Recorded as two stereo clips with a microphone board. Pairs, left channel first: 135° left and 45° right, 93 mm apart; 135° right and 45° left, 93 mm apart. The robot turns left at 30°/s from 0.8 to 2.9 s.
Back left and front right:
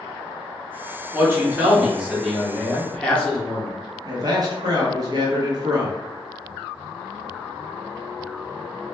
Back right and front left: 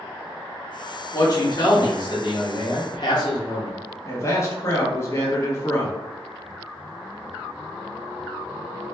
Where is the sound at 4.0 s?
80° right, 0.8 m.